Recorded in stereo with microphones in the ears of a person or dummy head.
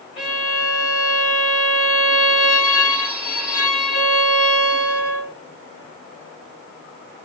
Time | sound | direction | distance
0.2 | a violin | 5° right (ahead or behind) | 2 m